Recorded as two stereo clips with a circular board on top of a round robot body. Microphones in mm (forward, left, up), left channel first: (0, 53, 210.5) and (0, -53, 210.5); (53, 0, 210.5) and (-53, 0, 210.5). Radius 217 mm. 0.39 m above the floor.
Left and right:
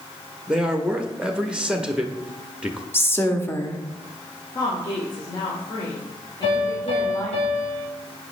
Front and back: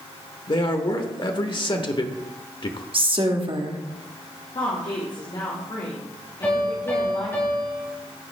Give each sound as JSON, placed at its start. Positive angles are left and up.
{"t": 0.5, "sound": "a man speaking", "azimuth_deg": -10, "distance_m": 1.1}
{"t": 2.9, "sound": "a woman speaking", "azimuth_deg": 155, "distance_m": 1.6}
{"t": 4.5, "sound": "a woman speaking", "azimuth_deg": 45, "distance_m": 1.9}
{"t": 6.4, "sound": "a piano", "azimuth_deg": 70, "distance_m": 2.5}